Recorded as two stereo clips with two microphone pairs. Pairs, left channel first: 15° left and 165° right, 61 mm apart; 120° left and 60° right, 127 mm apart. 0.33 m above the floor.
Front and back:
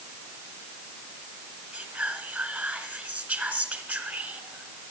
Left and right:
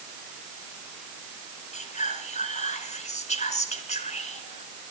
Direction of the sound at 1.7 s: 140° left.